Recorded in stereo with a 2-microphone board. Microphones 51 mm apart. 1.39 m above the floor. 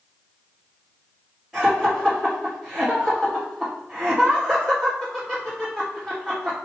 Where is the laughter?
10° right (ahead or behind), 3.5 m.